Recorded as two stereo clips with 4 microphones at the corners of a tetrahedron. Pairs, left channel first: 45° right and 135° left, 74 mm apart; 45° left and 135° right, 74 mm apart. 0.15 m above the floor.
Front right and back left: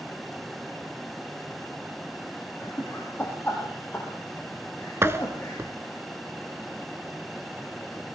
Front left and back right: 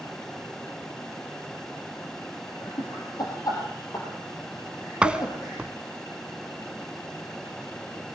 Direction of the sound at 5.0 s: 155° left.